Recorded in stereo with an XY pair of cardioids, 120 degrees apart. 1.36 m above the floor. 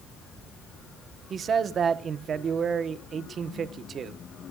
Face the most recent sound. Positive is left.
turn(degrees=-45)